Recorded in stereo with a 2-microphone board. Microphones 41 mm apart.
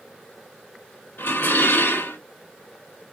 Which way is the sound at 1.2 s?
75° left (ahead or behind).